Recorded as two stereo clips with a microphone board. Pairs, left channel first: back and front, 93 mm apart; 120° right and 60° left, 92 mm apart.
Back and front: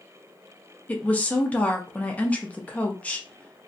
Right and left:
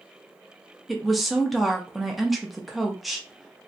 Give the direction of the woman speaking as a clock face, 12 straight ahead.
7 o'clock.